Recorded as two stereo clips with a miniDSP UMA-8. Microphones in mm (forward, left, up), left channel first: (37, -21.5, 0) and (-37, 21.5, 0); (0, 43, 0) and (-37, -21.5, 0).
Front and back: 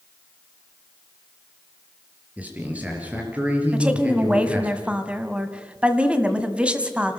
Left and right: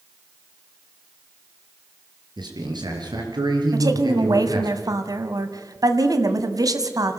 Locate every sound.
2.4 s a man speaking: 135° right, 5 m
3.7 s a woman speaking: 135° right, 1.7 m